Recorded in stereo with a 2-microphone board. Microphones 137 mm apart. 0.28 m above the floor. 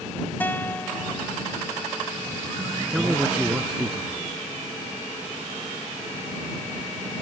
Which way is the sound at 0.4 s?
15° left (ahead or behind).